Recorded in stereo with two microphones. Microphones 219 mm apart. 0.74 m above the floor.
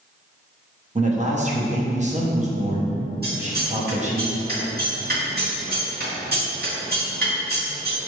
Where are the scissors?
45° right (ahead or behind), 1.6 m.